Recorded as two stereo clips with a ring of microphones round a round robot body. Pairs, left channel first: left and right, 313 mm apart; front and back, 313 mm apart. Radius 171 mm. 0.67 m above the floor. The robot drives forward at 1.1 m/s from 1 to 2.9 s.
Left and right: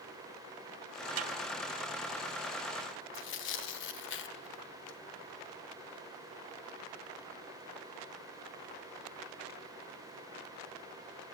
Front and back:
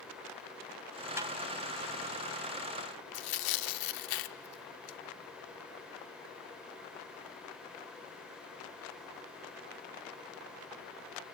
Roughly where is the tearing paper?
Ahead left.